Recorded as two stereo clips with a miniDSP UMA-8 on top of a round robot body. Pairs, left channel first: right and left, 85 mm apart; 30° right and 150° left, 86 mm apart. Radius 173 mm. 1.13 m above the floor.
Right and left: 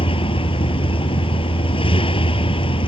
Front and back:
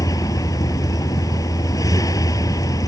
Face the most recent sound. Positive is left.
turn(degrees=-80)